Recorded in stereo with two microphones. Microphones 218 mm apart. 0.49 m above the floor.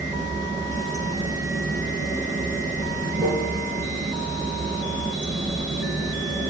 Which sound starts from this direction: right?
Running water, at 0.0 s.